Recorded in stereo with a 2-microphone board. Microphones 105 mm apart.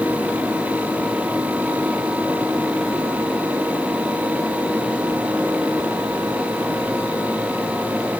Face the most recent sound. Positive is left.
No sound to turn to.